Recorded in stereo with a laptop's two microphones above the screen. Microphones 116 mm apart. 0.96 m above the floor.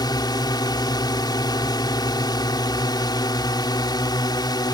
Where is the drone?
40° left (ahead or behind).